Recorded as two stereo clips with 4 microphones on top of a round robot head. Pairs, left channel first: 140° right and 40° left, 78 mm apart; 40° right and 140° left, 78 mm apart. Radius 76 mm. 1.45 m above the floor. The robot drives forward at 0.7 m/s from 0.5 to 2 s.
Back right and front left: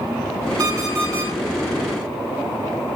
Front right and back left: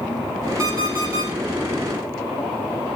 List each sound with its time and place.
0.6 s an alarm clock: 90° left, 4 m; by 1.3 s 95° left, 4 m